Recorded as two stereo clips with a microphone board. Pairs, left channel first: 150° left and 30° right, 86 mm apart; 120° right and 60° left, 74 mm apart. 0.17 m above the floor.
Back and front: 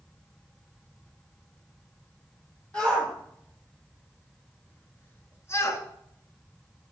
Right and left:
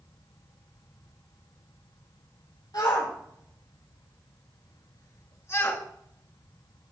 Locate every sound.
2.7 s a shout: 135° right, 4.5 m; by 5.8 s 175° right, 1.5 m